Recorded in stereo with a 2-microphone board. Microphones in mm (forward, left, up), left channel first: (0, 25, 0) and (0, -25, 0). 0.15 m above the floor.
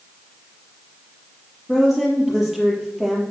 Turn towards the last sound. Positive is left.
turn(degrees=-5)  # may be behind; listen again after turning